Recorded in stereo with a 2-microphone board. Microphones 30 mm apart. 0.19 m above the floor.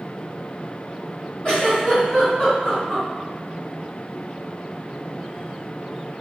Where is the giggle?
35° left (ahead or behind), 1.9 m.